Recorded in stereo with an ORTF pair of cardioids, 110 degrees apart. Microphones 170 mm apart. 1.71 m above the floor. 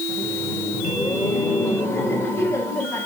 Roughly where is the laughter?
Ahead.